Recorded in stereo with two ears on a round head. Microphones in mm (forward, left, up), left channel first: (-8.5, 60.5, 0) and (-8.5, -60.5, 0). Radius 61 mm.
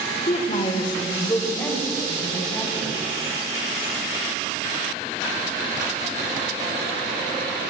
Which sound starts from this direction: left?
A woman speaking, at 0.3 s.